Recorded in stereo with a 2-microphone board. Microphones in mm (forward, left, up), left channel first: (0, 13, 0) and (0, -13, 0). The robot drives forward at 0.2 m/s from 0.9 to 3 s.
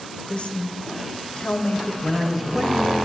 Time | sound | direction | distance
0.3 | a woman speaking | 45° left (ahead or behind) | 0.6 m
2.0 | a man speaking | 25° right (ahead or behind) | 1.0 m